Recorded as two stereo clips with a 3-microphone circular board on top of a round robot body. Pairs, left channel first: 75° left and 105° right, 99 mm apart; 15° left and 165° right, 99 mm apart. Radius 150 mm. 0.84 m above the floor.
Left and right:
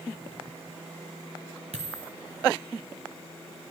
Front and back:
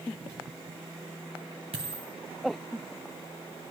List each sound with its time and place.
1.7 s a dropped coin: 130° right, 1.1 m